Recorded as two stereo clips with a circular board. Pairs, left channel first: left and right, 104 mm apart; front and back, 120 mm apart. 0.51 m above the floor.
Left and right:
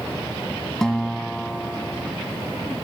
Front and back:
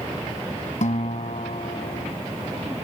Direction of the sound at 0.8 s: 5° left.